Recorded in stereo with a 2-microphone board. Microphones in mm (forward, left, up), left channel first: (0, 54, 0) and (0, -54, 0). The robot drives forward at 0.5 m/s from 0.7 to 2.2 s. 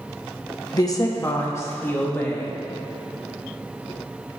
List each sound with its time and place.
0.7 s a woman speaking: 35° left (ahead or behind), 0.9 m; by 2.6 s 20° left (ahead or behind), 1.5 m